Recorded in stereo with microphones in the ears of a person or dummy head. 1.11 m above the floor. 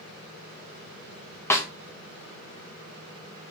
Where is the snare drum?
10° left (ahead or behind), 0.5 m.